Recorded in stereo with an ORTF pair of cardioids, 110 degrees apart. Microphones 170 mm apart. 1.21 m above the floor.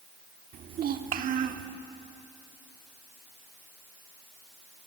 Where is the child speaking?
60° right, 2 m.